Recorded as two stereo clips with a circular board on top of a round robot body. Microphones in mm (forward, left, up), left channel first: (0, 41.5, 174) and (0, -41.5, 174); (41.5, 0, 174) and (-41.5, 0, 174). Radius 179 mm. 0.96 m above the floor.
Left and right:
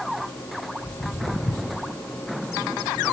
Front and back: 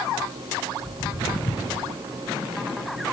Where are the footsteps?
40° left, 4 m; by 1.8 s 35° left, 5 m.